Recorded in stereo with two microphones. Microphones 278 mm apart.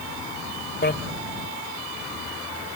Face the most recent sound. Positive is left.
turn(degrees=40)  # may be behind; listen again after turning